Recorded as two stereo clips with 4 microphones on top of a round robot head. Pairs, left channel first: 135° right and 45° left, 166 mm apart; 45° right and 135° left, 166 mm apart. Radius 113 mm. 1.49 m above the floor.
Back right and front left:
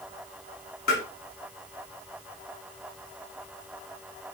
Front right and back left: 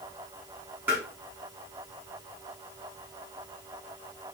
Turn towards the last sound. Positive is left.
turn(degrees=-145)